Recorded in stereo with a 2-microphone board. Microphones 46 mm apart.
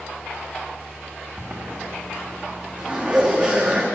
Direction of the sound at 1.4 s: 30° right (ahead or behind).